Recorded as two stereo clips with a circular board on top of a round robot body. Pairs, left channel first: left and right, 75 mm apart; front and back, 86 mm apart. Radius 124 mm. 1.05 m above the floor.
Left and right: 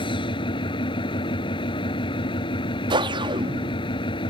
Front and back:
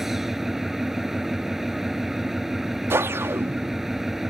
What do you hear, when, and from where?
0.0 s an engine running: 95° left
2.9 s a whoosh: 115° right